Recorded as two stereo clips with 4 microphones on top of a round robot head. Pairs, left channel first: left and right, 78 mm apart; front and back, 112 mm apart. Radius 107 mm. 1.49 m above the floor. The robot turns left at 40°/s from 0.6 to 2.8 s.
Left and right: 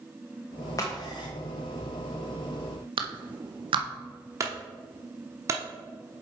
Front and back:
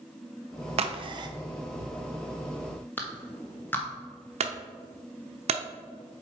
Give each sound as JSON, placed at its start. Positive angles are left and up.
{"t": 0.8, "sound": "a crack", "azimuth_deg": 150, "distance_m": 0.7}
{"t": 3.0, "sound": "a clap", "azimuth_deg": -75, "distance_m": 0.8}
{"t": 4.4, "sound": "a clunk", "azimuth_deg": -145, "distance_m": 0.7}